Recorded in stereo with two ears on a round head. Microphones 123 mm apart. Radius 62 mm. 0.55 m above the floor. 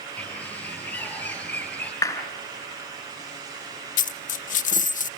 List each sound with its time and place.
0.2 s a bird: 10° left (ahead or behind), 8.5 m
2.0 s a clap: 20° left (ahead or behind), 3.5 m
4.0 s a dropped coin: 60° left (ahead or behind), 0.5 m